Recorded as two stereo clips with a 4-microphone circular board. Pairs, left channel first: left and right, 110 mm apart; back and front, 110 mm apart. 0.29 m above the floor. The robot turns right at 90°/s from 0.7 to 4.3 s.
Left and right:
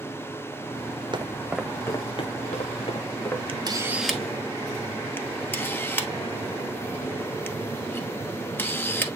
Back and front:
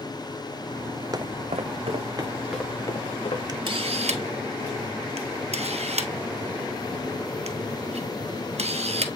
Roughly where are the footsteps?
Ahead right.